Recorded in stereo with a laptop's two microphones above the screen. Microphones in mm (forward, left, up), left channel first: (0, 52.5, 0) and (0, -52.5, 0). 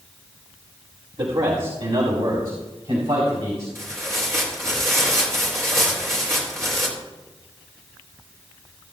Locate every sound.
1.2 s a man speaking: 65° right (ahead or behind), 2 m; by 3.6 s 80° right, 4.5 m
3.8 s tearing paper: 30° right (ahead or behind), 3 m